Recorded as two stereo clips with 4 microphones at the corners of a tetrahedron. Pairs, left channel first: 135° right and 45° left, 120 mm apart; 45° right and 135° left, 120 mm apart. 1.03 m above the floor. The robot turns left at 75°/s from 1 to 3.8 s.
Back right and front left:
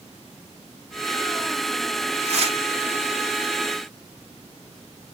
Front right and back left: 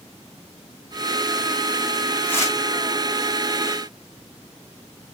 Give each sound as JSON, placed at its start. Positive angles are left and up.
{"t": 2.2, "sound": "tearing paper", "azimuth_deg": 35, "distance_m": 1.4}